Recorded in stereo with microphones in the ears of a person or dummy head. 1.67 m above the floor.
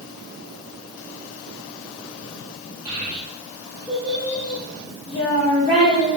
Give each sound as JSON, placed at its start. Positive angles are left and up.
{"t": 2.9, "sound": "a child speaking", "side_deg": -30, "distance_m": 1.4}